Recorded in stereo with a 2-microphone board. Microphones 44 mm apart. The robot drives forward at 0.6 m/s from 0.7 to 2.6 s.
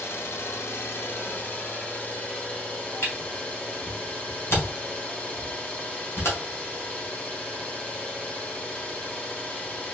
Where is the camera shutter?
75° left (ahead or behind), 2 m.